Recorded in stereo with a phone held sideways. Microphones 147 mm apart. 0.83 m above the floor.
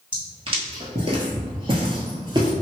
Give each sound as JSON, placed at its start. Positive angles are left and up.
{"t": 0.1, "sound": "footsteps", "side_deg": -35, "distance_m": 1.2}